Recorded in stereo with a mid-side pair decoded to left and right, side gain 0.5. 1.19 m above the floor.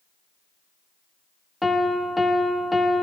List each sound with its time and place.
1.6 s a piano: 10° left, 0.8 m